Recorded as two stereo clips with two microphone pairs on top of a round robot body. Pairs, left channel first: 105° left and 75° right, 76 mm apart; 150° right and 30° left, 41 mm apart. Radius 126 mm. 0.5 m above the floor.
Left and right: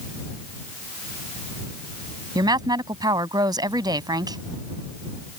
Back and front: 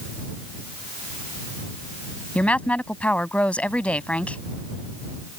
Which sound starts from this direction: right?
A woman speaking, at 2.4 s.